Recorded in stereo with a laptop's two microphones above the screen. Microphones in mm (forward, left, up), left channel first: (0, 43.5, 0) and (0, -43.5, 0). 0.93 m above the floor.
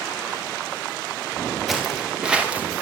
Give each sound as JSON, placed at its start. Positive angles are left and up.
{"t": 1.7, "sound": "footsteps", "side_deg": 0, "distance_m": 4.5}